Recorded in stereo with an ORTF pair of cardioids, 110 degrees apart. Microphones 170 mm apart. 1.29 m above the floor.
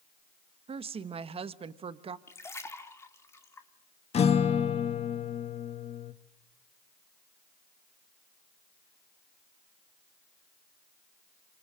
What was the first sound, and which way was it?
A woman speaking, 35° right.